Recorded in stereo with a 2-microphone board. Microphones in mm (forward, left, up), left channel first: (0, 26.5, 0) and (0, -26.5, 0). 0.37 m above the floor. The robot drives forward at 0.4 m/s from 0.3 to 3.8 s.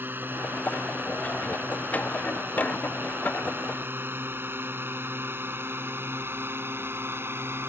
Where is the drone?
40° right (ahead or behind); by 7.7 s 45° right (ahead or behind).